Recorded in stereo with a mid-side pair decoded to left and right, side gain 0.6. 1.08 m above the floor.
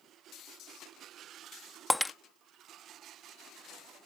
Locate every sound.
1.9 s breaking glass: 5° left